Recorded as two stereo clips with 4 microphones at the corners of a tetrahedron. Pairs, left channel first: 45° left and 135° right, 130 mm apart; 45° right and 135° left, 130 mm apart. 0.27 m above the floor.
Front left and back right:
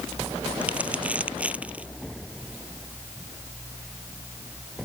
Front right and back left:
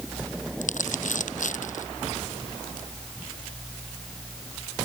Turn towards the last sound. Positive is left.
turn(degrees=-55)